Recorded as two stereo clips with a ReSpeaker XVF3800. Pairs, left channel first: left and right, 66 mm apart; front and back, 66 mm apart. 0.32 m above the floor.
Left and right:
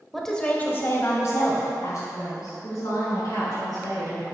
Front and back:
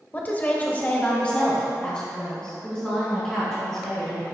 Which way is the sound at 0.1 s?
Straight ahead.